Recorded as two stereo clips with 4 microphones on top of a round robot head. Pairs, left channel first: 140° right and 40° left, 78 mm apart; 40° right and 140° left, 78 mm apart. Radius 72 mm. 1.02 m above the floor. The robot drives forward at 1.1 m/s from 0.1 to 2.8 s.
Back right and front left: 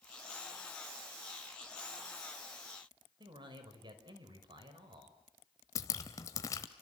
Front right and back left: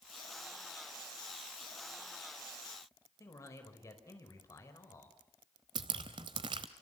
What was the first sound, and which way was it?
A man speaking, 10° left.